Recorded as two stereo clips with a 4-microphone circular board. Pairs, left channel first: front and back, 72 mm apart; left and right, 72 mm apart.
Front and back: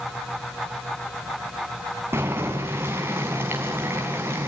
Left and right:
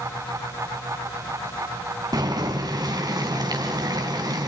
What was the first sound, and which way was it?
Boiling, 120° right.